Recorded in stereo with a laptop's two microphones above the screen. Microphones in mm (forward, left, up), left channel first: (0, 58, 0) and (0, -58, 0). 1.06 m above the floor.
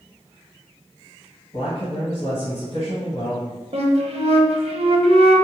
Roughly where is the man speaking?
Left.